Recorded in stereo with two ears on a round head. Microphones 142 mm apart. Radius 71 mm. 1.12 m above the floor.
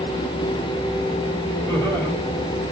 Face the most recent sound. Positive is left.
turn(degrees=10)  # may be behind; listen again after turning